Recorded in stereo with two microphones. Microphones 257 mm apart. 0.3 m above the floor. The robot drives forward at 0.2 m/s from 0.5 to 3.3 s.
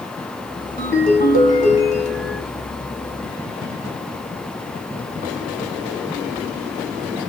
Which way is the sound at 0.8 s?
35° left (ahead or behind).